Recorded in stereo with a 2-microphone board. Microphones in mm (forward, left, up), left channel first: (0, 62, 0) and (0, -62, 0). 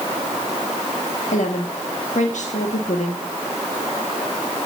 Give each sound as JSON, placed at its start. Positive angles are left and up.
{"t": 1.3, "sound": "a woman speaking", "side_deg": 70, "distance_m": 1.6}